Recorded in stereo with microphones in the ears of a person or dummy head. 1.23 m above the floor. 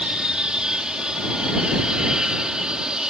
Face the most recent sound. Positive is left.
turn(degrees=-10)  # may be behind; listen again after turning